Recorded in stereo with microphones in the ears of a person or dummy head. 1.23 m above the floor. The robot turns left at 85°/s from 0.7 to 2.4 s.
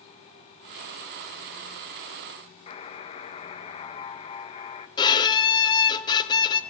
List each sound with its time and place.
2.7 s a buzzer: 30° left (ahead or behind), 0.9 m
5.0 s a violin: 25° left (ahead or behind), 1.0 m